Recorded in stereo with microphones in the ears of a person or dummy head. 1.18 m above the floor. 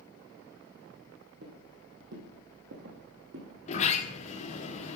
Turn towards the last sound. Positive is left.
turn(degrees=35)  # may be behind; listen again after turning